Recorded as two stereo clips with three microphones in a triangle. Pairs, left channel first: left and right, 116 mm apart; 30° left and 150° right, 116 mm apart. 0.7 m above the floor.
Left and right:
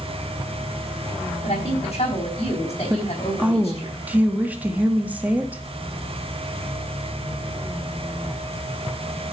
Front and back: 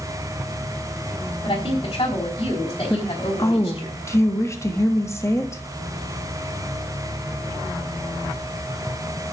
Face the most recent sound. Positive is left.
turn(degrees=-20)